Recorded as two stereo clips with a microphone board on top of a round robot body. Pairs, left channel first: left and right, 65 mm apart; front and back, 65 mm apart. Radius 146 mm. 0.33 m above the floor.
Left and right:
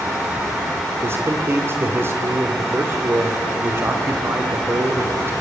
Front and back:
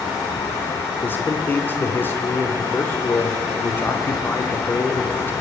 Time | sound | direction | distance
1.0 | a man speaking | 50° right | 1.9 m